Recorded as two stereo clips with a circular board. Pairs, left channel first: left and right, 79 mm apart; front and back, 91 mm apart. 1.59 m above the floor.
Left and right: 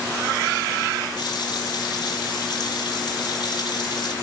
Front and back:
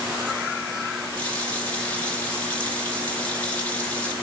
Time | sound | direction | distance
1.2 | a running tap | 75° left | 3 m